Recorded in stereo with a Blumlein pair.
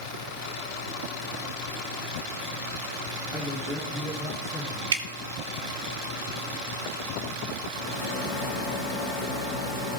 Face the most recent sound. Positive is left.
turn(degrees=50)